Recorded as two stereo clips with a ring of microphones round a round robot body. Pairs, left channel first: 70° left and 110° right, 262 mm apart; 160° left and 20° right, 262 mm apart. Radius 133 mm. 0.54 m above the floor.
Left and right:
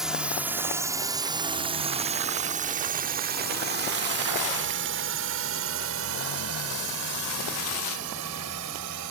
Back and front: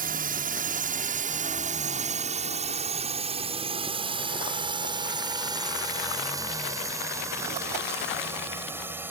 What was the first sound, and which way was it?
A drone, 25° right.